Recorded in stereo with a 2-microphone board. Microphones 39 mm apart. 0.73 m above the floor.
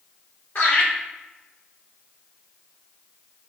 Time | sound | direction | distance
0.6 | laughter | 65° left (ahead or behind) | 1.7 m